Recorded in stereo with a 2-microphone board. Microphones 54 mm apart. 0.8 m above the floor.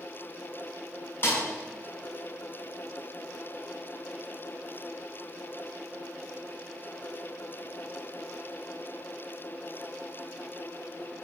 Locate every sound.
1.2 s a snare drum: 40° left (ahead or behind), 6 m